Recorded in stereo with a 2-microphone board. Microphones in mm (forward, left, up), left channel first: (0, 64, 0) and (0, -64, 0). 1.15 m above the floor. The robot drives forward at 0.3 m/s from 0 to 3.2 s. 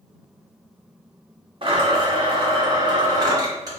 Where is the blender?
45° right (ahead or behind), 0.8 m; by 3.8 s 30° right (ahead or behind), 1.1 m.